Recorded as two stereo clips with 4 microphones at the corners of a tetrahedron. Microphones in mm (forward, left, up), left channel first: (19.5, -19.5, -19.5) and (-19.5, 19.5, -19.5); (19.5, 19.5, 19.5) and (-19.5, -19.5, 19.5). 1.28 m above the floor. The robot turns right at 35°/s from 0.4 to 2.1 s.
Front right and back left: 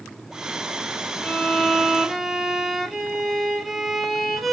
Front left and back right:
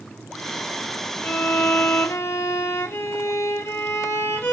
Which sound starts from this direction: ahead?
A violin, at 1.2 s.